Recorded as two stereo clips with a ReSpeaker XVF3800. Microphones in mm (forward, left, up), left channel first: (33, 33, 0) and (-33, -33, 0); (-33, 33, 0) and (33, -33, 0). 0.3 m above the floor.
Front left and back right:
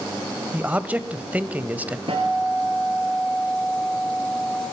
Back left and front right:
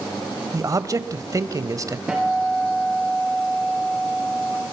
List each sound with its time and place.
0.5 s a man speaking: 70° right, 1.3 m
2.1 s a guitar: 125° right, 4 m